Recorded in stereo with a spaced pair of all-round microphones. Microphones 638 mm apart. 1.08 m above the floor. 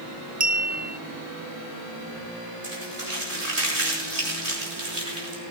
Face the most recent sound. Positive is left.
turn(degrees=-65)  # may be behind; listen again after turning